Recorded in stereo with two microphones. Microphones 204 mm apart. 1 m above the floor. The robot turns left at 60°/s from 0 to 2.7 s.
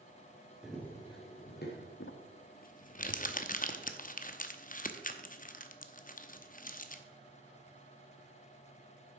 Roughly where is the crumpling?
Left.